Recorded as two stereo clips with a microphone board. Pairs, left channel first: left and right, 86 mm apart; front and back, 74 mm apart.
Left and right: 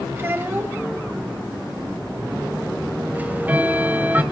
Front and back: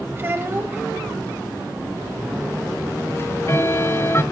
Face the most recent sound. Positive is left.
turn(degrees=-30)